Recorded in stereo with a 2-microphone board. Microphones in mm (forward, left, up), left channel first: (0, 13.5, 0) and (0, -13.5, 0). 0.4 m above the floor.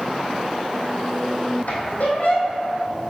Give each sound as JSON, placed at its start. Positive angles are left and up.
{"t": 1.7, "sound": "a squeak", "side_deg": 75, "distance_m": 1.8}